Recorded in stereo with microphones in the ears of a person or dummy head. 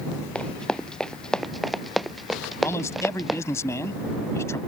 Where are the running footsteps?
5° left (ahead or behind); by 3.4 s centre (ahead or behind).